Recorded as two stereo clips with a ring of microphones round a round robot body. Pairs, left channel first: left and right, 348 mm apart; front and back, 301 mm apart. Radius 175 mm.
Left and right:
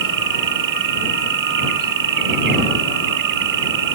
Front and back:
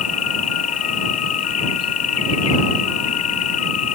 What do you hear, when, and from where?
0.0 s an insect: 50° right